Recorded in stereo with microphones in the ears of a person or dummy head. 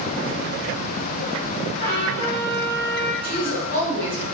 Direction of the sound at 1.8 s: 65° left (ahead or behind).